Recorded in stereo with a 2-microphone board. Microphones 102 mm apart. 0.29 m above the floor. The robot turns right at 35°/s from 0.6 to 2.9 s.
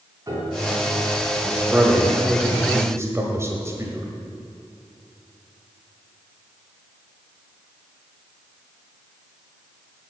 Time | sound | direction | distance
0.3 | a piano | 30° right (ahead or behind) | 2.5 m
1.6 | a man speaking | 15° right (ahead or behind) | 1.3 m